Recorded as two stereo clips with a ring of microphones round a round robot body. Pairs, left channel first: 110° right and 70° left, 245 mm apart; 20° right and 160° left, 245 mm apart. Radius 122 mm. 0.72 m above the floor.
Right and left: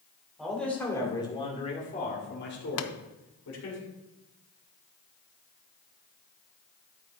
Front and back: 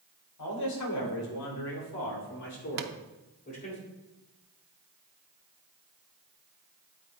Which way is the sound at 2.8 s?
150° right.